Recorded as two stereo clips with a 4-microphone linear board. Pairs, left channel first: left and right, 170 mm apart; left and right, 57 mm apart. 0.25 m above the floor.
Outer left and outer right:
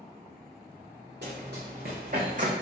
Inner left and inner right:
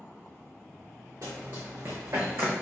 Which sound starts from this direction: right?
Running footsteps, at 1.2 s.